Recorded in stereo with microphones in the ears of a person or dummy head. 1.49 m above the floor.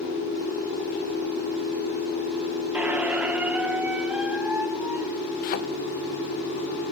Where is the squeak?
5° right (ahead or behind), 0.9 m.